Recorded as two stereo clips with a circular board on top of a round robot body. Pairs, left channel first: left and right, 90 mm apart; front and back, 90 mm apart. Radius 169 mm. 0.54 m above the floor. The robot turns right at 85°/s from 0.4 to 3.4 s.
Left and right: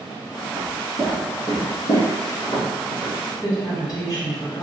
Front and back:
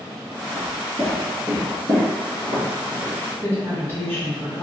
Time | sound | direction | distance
0.6 | footsteps | 140° right | 0.5 m
3.4 | a woman speaking | 55° left | 1.6 m